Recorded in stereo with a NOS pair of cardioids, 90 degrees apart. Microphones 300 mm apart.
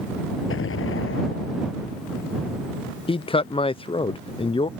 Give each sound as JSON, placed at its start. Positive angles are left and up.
{"t": 0.5, "sound": "an explosion", "azimuth_deg": 45}
{"t": 3.1, "sound": "a man speaking", "azimuth_deg": 20}